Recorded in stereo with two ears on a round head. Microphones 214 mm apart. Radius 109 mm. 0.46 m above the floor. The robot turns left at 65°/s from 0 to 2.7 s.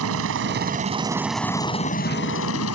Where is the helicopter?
95° right; by 2.8 s 90° left.